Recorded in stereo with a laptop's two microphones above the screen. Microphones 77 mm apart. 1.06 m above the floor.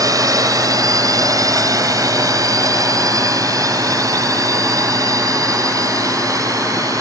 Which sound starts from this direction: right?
A drone, at 0.0 s.